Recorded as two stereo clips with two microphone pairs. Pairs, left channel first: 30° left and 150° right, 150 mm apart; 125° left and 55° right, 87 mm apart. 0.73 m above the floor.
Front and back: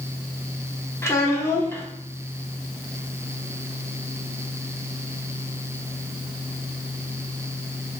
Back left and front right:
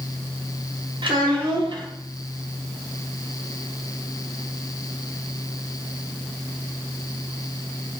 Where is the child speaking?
45° right, 1.1 m.